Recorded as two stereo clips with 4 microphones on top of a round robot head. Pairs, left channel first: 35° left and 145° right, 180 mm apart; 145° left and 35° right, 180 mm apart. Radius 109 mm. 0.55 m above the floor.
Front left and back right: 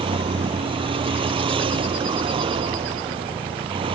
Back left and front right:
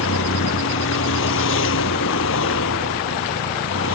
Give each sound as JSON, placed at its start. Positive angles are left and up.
{"t": 0.0, "sound": "a vehicle", "azimuth_deg": 155}